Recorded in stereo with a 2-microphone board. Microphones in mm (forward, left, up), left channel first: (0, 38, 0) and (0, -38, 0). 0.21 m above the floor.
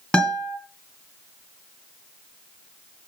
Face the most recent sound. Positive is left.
turn(degrees=10)  # may be behind; listen again after turning